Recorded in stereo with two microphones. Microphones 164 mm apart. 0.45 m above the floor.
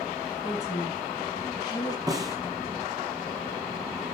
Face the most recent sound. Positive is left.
turn(degrees=-20)  # may be behind; listen again after turning